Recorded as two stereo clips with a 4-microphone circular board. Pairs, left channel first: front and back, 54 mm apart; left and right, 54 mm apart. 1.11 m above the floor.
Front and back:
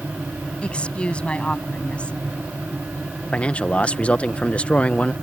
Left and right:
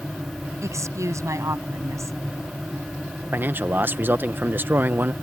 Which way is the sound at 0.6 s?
70° right.